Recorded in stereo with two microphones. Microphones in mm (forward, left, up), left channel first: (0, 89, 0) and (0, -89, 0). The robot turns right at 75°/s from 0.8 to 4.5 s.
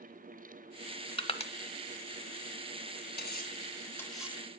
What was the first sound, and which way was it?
Crushing, 30° left (ahead or behind).